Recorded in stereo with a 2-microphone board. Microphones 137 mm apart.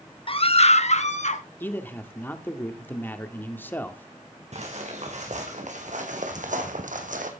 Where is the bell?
I don't hear a bell.